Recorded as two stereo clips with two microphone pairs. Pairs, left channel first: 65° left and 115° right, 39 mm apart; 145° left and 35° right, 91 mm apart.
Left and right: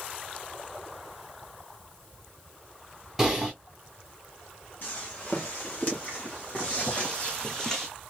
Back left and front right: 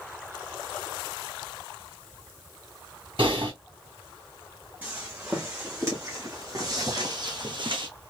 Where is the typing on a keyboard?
30° right, 3.5 m.